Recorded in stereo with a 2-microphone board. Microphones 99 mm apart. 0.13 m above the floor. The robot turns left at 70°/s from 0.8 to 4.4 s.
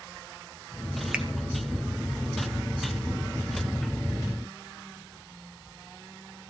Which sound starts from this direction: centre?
A finger snap, at 1.1 s.